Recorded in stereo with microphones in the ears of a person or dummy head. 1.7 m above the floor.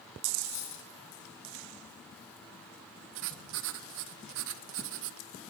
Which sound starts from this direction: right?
Writing, at 3.1 s.